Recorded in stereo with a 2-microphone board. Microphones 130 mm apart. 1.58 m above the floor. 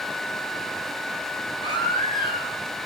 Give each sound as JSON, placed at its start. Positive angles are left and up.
{"t": 1.6, "sound": "a baby crying", "side_deg": 35, "distance_m": 6.0}